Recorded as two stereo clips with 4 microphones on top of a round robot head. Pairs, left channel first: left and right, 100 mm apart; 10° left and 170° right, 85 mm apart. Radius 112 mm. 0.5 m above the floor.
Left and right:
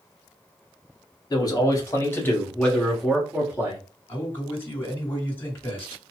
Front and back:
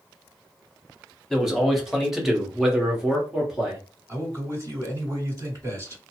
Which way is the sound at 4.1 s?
155° left.